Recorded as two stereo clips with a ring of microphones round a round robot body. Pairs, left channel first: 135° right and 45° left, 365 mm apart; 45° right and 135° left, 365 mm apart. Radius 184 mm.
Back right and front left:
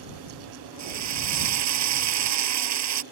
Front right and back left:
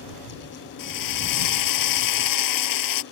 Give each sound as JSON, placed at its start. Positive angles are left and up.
{"t": 0.8, "sound": "a drill", "azimuth_deg": -5}